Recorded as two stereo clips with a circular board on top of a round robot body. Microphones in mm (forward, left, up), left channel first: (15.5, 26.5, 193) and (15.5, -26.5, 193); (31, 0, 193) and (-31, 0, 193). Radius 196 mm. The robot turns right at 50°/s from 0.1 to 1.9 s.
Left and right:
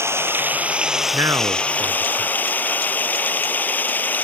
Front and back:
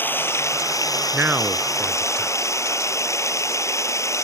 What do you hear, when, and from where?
0.0 s running water: 55° right; by 4.2 s 35° left
1.1 s a man speaking: 120° right; by 2.4 s 85° right